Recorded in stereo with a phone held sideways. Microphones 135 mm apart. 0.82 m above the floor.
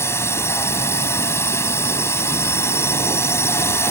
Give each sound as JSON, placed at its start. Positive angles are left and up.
{"t": 0.0, "sound": "a drone", "side_deg": 20}